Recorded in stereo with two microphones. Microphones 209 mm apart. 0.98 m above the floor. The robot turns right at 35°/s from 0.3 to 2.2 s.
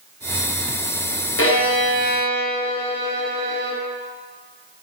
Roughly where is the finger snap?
No finger snap in this recording.